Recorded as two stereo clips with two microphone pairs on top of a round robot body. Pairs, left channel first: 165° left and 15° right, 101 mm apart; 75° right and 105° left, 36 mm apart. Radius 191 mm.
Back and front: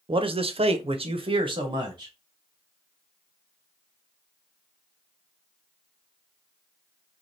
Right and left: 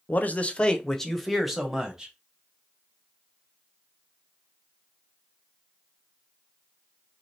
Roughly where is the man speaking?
Ahead right.